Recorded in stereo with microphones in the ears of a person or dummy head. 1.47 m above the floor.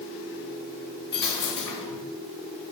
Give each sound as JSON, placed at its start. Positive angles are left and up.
{"t": 1.1, "sound": "a dropped coin", "side_deg": 20, "distance_m": 1.5}